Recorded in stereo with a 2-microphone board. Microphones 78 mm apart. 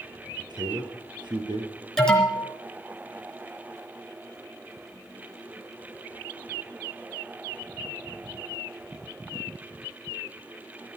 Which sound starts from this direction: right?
A man speaking, at 0.4 s.